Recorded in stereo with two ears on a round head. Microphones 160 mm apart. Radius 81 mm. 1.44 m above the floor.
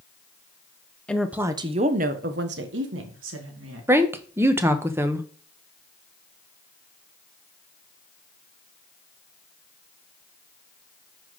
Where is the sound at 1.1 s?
5° left (ahead or behind), 0.8 m; by 3.9 s 80° right, 2 m.